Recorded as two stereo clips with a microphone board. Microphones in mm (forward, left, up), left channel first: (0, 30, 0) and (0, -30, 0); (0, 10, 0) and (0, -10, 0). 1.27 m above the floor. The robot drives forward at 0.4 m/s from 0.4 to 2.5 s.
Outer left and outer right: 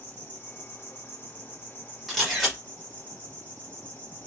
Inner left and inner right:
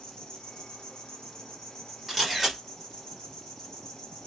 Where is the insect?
35° left (ahead or behind), 0.8 m; by 4.3 s 25° left (ahead or behind), 1.1 m.